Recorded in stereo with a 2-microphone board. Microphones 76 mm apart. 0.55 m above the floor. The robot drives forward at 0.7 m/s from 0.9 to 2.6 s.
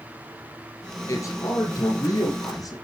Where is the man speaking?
45° left (ahead or behind), 7.5 m; by 2.7 s 50° left (ahead or behind), 6.5 m.